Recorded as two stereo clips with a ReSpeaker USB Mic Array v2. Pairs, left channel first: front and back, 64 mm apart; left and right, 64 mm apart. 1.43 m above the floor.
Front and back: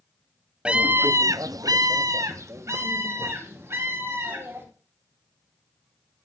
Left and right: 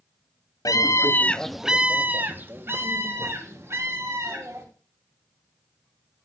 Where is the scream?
110° left, 1.0 m; by 4.6 s 130° right, 4.5 m.